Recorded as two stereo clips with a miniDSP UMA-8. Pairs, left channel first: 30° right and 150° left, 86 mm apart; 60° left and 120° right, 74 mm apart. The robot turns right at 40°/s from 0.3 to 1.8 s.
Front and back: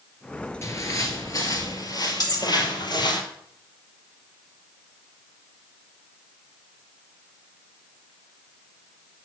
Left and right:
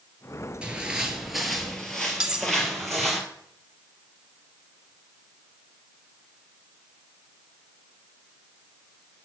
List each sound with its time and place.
0.6 s footsteps: 55° right, 2.0 m; by 3.2 s 25° right, 3 m
2.2 s cutlery clinking: 40° right, 1.3 m